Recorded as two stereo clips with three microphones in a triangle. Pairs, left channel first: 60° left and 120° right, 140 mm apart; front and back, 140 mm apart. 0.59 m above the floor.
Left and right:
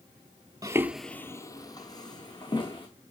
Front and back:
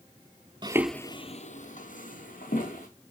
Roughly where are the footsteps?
Behind.